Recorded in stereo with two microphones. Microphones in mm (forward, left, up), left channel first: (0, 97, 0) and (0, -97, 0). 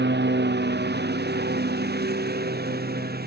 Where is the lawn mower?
60° right (ahead or behind); by 3.3 s 50° right (ahead or behind).